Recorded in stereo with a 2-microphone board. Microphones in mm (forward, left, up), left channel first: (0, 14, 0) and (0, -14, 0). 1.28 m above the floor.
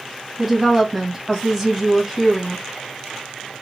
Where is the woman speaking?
5° right (ahead or behind), 1.6 m.